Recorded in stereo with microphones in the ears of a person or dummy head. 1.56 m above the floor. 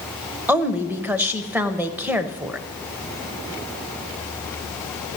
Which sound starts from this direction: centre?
A woman speaking, at 0.5 s.